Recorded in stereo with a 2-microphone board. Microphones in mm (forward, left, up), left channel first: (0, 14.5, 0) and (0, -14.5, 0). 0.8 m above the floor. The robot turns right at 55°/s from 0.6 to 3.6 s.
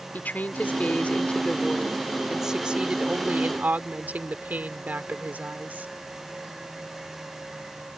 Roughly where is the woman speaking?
Left.